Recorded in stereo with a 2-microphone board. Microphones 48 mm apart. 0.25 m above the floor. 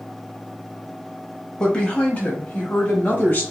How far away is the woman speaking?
About 1.1 m.